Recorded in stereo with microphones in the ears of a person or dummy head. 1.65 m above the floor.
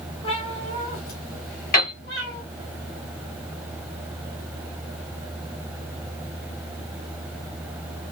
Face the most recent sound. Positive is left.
turn(degrees=45)  # may be behind; listen again after turning